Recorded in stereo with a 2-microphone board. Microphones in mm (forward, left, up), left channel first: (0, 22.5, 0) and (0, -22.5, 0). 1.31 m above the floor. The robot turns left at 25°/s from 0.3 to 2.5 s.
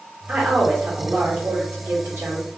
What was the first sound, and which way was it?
A woman speaking, 25° right.